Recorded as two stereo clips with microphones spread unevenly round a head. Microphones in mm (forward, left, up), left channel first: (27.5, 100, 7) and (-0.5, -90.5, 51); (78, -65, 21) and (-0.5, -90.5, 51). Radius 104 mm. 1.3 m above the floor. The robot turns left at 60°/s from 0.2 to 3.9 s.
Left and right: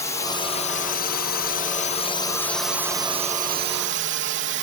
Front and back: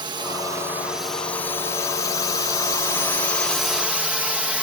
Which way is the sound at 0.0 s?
145° left.